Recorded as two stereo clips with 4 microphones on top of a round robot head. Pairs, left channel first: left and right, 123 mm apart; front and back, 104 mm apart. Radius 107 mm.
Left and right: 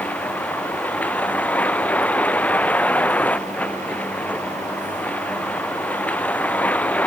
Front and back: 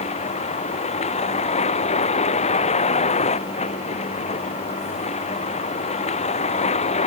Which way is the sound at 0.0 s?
10° left.